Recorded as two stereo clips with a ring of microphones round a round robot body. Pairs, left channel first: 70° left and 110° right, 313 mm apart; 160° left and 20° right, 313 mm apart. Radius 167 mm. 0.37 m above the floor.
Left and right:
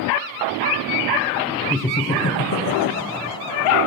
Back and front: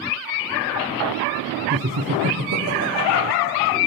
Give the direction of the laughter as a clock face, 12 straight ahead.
1 o'clock.